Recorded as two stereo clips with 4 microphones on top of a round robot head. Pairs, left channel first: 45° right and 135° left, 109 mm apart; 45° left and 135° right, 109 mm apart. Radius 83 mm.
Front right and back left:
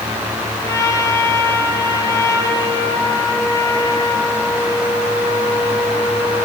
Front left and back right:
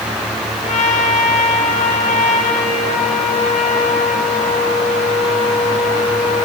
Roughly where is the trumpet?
Ahead.